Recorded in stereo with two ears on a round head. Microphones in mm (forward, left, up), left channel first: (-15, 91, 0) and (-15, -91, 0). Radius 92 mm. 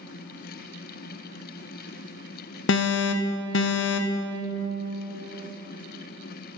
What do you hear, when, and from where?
2.7 s an alarm: 60° left (ahead or behind), 0.5 m